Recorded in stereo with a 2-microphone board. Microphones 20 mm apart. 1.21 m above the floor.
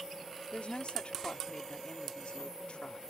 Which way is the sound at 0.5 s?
85° left.